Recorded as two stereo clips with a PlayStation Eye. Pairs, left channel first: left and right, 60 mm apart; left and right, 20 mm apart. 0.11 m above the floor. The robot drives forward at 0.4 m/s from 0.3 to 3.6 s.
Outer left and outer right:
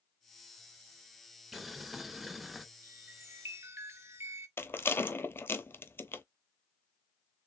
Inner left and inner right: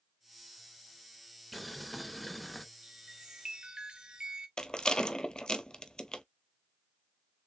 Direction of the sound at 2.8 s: 40° right (ahead or behind).